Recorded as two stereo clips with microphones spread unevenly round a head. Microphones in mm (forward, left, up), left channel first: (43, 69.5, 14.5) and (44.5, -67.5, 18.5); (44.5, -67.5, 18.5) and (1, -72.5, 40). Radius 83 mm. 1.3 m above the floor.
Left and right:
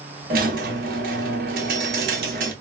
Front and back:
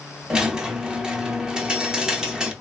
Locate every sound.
0.3 s a squeak: 115° right, 0.6 m